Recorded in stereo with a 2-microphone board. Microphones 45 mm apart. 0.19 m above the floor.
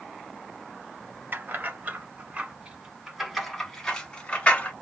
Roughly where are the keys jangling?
Right.